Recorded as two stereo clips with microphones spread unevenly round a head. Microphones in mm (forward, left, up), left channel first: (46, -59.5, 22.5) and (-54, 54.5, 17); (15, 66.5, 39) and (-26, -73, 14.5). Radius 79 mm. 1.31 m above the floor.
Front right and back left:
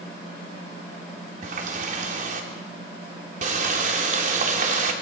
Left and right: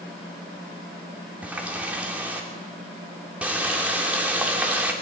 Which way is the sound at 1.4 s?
170° left.